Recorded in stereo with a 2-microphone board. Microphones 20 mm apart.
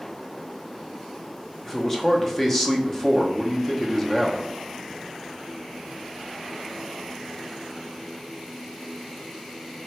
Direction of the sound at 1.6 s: 20° left (ahead or behind).